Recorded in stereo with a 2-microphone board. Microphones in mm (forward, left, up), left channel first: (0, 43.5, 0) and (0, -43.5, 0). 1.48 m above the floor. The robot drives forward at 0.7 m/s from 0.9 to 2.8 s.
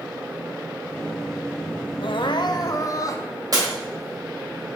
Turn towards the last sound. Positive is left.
turn(degrees=-45)  # may be behind; listen again after turning